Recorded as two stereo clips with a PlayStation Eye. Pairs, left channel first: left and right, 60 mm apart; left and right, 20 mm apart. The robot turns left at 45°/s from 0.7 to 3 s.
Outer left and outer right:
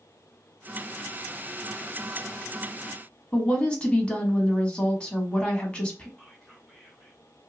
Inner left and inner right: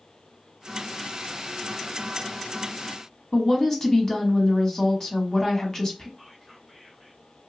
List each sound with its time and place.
3.3 s a woman speaking: 20° left (ahead or behind), 1.1 m
6.2 s whispering: 5° left (ahead or behind), 1.9 m